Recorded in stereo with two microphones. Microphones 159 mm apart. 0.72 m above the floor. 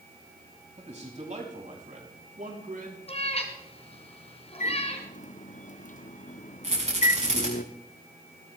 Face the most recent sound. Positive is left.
turn(degrees=-45)  # may be behind; listen again after turning